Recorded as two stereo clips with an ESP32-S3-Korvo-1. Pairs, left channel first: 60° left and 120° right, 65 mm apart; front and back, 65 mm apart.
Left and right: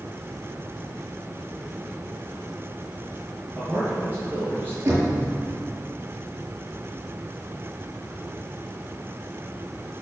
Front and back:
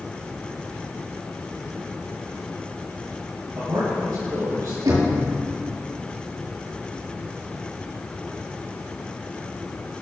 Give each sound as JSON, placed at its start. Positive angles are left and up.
{"t": 3.5, "sound": "a man speaking", "azimuth_deg": 170, "distance_m": 5.5}
{"t": 4.8, "sound": "knocking", "azimuth_deg": -175, "distance_m": 6.0}